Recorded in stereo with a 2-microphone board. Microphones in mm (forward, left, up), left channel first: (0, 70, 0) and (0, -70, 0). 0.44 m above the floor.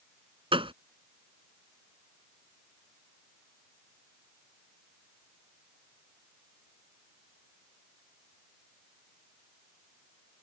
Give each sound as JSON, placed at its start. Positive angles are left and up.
{"t": 0.5, "sound": "a gunshot", "side_deg": -40}